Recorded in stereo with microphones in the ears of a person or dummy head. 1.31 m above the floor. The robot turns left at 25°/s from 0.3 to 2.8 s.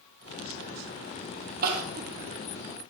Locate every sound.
1.6 s crying: 45° right (ahead or behind), 1.2 m; by 2.1 s 55° right (ahead or behind), 1.2 m